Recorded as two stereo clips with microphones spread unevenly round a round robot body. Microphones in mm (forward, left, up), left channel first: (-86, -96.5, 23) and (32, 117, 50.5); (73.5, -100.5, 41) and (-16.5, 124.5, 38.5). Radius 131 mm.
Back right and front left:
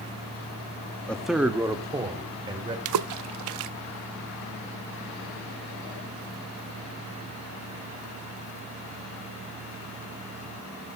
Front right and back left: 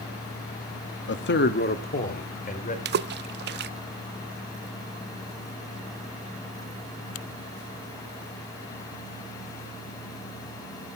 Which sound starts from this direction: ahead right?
A man speaking, at 1.1 s.